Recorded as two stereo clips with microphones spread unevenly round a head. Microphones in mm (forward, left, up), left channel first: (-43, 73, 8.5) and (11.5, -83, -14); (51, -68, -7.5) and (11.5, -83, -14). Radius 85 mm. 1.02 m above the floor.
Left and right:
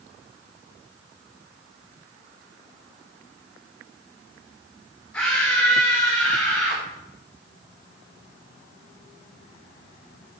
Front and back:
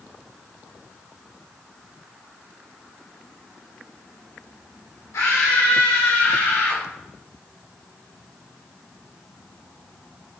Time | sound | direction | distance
5.1 | a scream | 25° left | 3 m